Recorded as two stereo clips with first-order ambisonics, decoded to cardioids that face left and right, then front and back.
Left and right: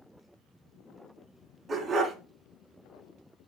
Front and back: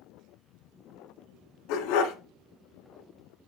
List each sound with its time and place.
1.7 s a dog barking: 20° right, 1.2 m